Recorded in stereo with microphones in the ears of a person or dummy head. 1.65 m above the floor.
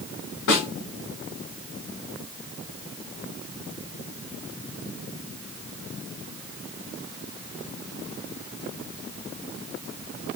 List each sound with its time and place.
0.5 s a snare drum: 60° left (ahead or behind), 2 m